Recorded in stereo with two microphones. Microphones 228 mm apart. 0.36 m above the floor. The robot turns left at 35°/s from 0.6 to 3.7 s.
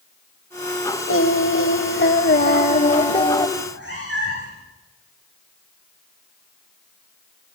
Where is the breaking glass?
No breaking glass in this recording.